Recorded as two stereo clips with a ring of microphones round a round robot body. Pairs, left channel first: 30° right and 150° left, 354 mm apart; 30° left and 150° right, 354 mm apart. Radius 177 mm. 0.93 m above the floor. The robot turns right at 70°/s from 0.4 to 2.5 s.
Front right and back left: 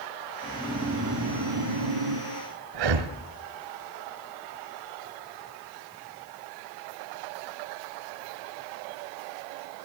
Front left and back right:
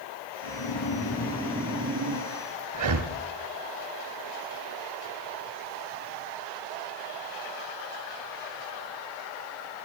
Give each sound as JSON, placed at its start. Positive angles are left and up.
{"t": 0.4, "sound": "snoring", "azimuth_deg": 45, "distance_m": 6.0}
{"t": 2.7, "sound": "breathing", "azimuth_deg": 170, "distance_m": 1.9}